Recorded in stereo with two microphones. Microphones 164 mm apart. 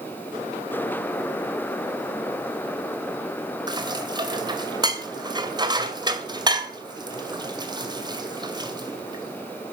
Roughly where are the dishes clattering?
Right.